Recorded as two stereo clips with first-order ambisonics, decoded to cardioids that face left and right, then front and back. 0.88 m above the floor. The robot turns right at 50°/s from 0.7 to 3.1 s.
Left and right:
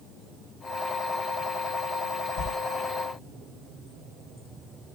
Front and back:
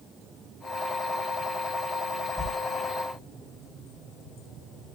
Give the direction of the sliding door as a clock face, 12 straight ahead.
9 o'clock.